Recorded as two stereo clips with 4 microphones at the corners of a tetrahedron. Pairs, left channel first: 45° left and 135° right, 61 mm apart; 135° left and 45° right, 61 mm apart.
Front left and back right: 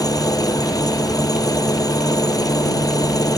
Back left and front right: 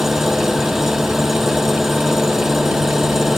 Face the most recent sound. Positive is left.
turn(degrees=40)